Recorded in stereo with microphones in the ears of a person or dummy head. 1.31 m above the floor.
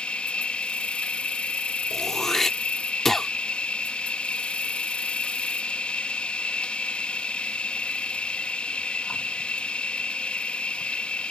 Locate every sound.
0.0 s an insect: 5° left (ahead or behind)
1.9 s throat clearing: centre (ahead or behind)